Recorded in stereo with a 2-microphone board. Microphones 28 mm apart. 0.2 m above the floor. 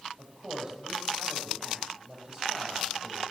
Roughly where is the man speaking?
Right.